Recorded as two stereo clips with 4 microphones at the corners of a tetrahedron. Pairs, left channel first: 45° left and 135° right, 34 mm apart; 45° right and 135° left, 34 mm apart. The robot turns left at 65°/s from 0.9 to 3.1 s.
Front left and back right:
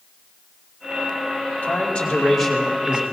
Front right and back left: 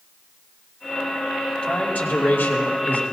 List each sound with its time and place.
1.6 s a man speaking: 10° left, 2.5 m; by 3.0 s 80° right, 2.5 m